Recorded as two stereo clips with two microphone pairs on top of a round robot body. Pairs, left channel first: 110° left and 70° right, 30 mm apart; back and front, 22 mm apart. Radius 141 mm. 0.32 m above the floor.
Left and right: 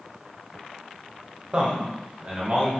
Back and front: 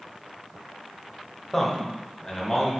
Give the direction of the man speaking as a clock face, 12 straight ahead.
4 o'clock.